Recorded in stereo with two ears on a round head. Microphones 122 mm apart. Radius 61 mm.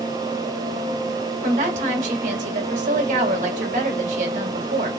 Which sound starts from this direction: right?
A woman speaking, at 1.4 s.